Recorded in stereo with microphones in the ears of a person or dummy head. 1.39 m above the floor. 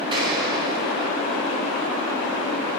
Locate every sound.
0.1 s an explosion: 25° right (ahead or behind), 3.5 m